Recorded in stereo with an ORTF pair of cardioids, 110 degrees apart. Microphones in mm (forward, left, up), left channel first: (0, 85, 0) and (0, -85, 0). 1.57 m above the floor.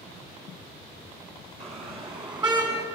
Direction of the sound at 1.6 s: 35° right.